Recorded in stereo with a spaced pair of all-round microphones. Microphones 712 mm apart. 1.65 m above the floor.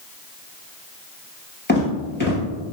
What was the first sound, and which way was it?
Footsteps, 15° left (ahead or behind).